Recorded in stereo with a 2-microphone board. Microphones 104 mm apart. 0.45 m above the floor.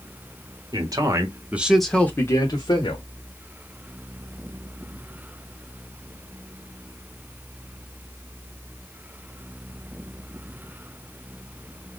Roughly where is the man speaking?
Right.